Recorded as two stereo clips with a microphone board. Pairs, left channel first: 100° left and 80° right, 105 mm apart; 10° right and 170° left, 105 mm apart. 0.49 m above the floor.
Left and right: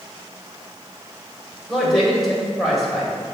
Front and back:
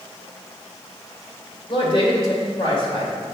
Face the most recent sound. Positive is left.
turn(degrees=15)